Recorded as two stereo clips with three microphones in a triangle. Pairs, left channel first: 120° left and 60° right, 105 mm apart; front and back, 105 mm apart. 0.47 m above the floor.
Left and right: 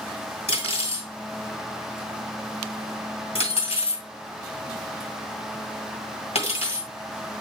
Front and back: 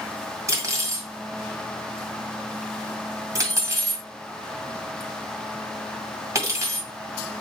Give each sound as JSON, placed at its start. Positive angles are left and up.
{"t": 0.5, "sound": "cutlery clinking", "azimuth_deg": 120, "distance_m": 2.0}